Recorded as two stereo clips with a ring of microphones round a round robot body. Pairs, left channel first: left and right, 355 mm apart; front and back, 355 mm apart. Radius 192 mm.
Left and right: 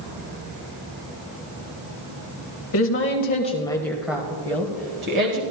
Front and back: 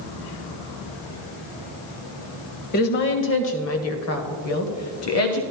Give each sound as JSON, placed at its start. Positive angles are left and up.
{"t": 2.7, "sound": "a woman speaking", "azimuth_deg": 55, "distance_m": 1.1}